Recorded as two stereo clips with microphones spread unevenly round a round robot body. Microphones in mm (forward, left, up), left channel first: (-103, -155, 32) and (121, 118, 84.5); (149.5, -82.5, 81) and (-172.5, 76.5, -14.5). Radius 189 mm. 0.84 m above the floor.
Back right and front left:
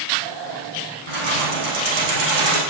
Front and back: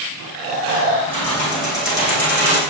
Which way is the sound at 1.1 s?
60° left.